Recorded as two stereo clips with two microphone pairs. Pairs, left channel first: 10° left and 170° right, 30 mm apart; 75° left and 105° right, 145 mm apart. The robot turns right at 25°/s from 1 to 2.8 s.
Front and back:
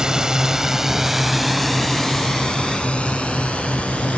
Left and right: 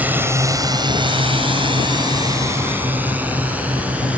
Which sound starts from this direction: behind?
A drone, at 0.0 s.